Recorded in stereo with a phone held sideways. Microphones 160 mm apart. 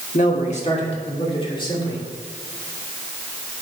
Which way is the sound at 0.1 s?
50° left (ahead or behind).